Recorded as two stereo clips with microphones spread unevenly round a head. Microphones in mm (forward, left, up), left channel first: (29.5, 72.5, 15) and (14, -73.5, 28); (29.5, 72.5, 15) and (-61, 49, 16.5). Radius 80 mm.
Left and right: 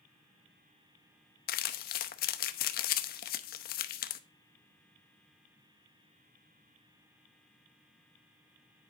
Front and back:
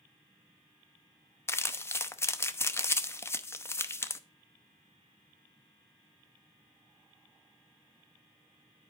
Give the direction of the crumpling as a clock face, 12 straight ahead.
10 o'clock.